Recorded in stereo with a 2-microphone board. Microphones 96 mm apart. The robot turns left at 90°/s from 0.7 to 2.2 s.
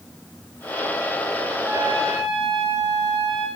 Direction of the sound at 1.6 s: 30° right.